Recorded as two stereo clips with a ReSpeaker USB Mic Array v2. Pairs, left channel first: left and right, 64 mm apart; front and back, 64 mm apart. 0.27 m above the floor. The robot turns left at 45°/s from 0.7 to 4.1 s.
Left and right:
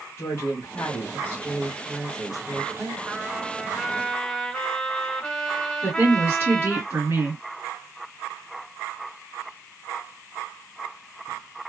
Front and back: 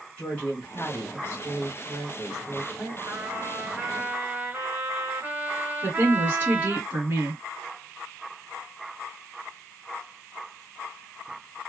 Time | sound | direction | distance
0.2 | a woman speaking | 60° left | 2.0 m
3.0 | a trumpet | 155° right | 1.6 m
5.8 | a woman speaking | 120° right | 1.8 m